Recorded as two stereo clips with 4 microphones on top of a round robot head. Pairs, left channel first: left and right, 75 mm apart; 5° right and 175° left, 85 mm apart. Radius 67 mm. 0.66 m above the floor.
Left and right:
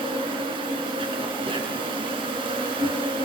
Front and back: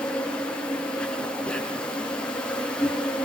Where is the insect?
85° right, 4.5 m.